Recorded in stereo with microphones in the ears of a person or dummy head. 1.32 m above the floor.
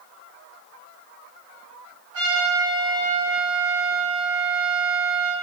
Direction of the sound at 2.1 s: 75° right (ahead or behind).